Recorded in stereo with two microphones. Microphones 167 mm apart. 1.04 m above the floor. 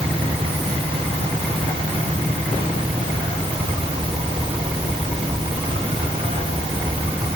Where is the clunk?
No clunk in this recording.